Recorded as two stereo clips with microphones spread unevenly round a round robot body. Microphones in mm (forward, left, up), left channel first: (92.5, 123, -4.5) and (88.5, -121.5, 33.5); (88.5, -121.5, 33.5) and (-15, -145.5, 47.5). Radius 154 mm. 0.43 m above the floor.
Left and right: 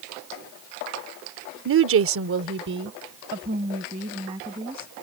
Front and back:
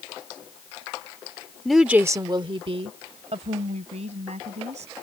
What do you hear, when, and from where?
1.6 s a woman speaking: 65° right; by 4.9 s 170° right